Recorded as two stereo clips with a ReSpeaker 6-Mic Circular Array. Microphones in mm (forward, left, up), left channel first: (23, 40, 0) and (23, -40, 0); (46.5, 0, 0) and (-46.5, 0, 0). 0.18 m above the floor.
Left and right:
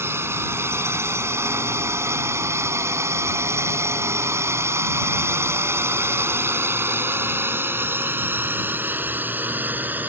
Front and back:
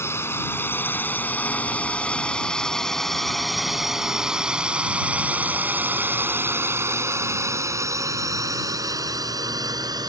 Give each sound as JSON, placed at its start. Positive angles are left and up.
{"t": 0.0, "sound": "a drone", "azimuth_deg": -50}